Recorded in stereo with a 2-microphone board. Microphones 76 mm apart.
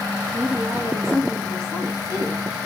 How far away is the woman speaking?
About 4.5 m.